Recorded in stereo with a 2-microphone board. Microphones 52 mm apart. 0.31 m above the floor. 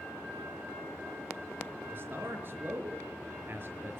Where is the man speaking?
45° right (ahead or behind), 4 m.